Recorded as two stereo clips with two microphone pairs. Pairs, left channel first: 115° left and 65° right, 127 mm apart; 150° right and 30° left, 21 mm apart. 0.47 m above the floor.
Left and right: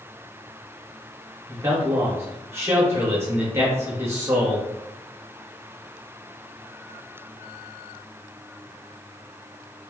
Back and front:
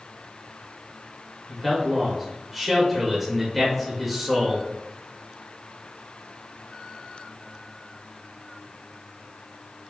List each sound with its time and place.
1.5 s a man speaking: 50° right, 1.1 m